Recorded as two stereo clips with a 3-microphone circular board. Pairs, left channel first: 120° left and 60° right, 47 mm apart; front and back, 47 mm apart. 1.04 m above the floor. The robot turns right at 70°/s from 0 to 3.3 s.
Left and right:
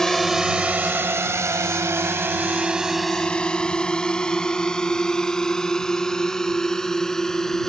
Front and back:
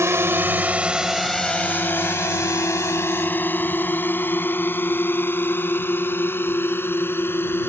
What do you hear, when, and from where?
0.0 s a drone: 160° right; by 7.7 s 40° left